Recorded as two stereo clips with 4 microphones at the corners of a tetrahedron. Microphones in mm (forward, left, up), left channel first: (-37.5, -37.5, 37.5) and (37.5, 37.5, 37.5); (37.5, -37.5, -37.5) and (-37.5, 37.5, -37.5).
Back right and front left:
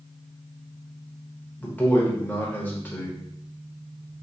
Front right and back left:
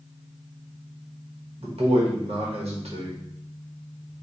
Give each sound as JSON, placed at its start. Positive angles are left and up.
{"t": 1.6, "sound": "a man speaking", "azimuth_deg": 150, "distance_m": 1.2}